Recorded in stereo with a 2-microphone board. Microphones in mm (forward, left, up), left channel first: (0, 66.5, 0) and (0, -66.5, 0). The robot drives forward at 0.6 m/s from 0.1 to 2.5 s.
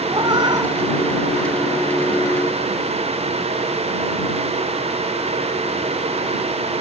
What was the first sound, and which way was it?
A cat meowing, 35° right (ahead or behind).